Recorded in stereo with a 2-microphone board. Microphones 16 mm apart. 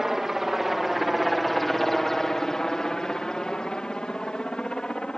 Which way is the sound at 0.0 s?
20° right (ahead or behind).